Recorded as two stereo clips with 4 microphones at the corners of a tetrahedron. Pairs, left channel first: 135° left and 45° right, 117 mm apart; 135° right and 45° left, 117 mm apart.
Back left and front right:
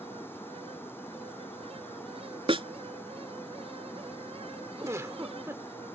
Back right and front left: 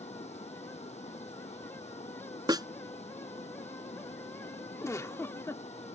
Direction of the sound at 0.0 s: 155° right.